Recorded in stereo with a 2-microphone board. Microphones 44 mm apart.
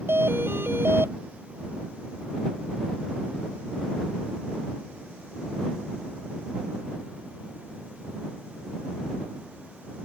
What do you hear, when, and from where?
0.1 s a doorbell: 60° right (ahead or behind)